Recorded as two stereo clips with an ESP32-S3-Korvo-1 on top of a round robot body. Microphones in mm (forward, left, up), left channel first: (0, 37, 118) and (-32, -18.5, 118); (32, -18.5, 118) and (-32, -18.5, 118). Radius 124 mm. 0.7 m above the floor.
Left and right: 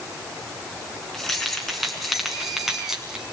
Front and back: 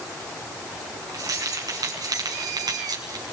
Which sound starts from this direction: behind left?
Keys jangling, at 1.1 s.